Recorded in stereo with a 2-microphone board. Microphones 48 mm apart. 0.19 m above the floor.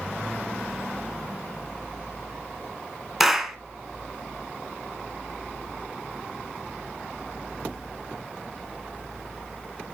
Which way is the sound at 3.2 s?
5° right (ahead or behind).